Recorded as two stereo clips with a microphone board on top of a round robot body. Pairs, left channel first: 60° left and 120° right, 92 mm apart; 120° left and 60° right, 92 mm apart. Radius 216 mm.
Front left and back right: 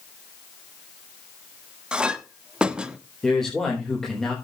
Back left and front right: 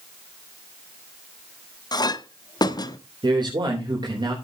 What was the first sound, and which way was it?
A clink, 160° left.